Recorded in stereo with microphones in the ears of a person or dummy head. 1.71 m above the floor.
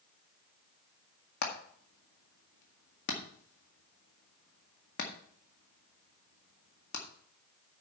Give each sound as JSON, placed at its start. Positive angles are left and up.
{"t": 1.4, "sound": "hammering", "side_deg": 50, "distance_m": 1.8}